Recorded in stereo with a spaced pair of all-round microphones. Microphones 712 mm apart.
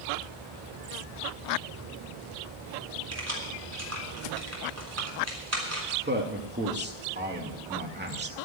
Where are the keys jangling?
20° right (ahead or behind), 3.5 m.